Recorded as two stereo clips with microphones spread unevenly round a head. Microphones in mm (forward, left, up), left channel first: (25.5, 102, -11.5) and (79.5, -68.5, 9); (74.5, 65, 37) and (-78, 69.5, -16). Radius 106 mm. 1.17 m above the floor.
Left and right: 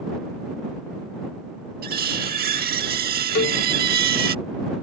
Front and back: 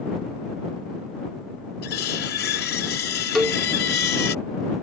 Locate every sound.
1.8 s cutlery clinking: 40° right
3.4 s a cowbell: 80° left